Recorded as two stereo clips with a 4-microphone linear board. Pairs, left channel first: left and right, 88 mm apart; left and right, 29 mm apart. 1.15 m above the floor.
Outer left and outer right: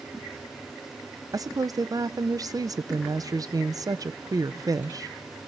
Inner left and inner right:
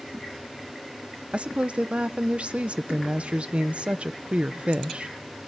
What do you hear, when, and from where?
1.3 s a woman speaking: 45° right (ahead or behind), 0.6 m